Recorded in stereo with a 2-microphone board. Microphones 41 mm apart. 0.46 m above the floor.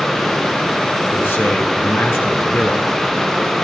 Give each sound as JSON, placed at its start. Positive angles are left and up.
{"t": 1.1, "sound": "a man speaking", "side_deg": 75, "distance_m": 5.0}